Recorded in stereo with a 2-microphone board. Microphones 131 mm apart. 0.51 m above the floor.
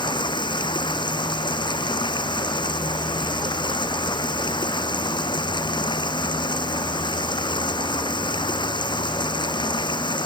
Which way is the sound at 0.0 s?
35° left (ahead or behind).